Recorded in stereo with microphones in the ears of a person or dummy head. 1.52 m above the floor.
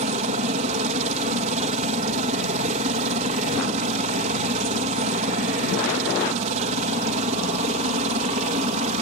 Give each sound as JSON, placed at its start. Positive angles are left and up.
{"t": 0.0, "sound": "a helicopter", "side_deg": -35}